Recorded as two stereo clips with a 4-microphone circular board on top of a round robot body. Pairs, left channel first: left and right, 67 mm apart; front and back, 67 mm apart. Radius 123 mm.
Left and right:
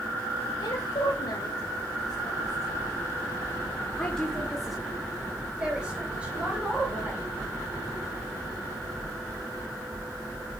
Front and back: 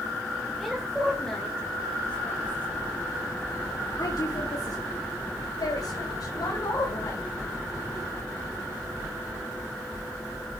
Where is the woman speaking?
95° left, 3 m; by 7.3 s 25° right, 4.5 m.